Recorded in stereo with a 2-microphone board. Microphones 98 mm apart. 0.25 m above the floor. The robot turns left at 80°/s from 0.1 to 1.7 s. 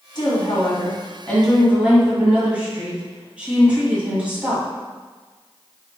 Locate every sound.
0.1 s a woman speaking: 110° left, 1.7 m; by 4.7 s 15° right, 1.7 m